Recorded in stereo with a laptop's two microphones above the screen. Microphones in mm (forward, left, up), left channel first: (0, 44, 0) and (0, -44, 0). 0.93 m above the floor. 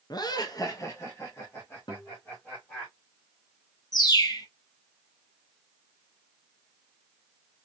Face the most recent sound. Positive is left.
turn(degrees=45)  # may be behind; listen again after turning